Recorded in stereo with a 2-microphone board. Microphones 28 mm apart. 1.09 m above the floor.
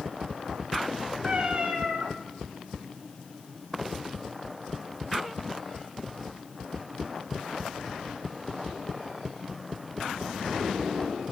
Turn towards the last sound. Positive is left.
turn(degrees=-50)  # may be behind; listen again after turning